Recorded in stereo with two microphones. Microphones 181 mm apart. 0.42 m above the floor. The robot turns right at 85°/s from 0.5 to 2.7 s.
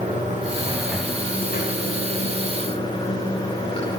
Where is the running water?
35° right, 9 m; by 4.0 s 150° left, 9 m.